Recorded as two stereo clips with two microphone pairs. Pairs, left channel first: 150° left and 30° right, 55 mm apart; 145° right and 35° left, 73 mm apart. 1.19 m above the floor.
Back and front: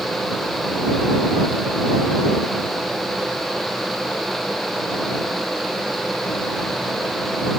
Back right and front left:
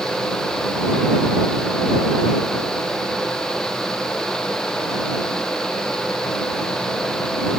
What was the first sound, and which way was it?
Only background noise.